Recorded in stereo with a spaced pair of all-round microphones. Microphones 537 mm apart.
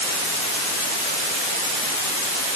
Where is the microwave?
I don't hear a microwave.